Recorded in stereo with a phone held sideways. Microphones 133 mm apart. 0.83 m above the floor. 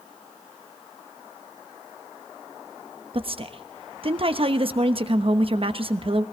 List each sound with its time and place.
3.1 s a woman speaking: 45° right (ahead or behind), 1.0 m